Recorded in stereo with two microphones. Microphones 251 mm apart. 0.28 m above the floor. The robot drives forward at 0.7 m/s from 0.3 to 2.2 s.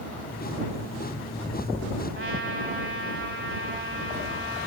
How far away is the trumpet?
About 1.6 m.